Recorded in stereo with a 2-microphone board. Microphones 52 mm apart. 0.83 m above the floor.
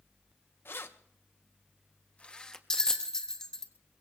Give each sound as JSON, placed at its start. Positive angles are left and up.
{"t": 0.7, "sound": "keys jangling", "side_deg": 50, "distance_m": 0.9}
{"t": 2.7, "sound": "a bell", "side_deg": 15, "distance_m": 1.1}